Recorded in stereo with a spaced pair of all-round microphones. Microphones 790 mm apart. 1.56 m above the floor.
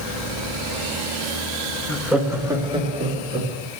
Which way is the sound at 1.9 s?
Centre (ahead or behind).